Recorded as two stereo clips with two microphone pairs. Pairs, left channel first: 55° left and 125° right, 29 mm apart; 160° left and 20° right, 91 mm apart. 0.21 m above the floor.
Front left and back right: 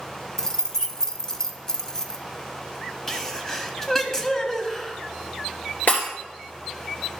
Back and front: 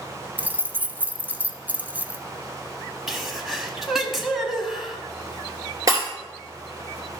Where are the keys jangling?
25° left, 0.7 m.